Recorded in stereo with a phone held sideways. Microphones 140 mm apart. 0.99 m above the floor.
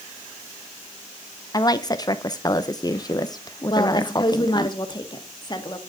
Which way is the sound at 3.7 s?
30° left (ahead or behind).